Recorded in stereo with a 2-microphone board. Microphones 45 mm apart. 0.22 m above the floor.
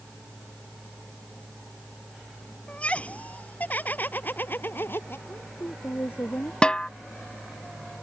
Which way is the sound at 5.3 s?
60° left (ahead or behind).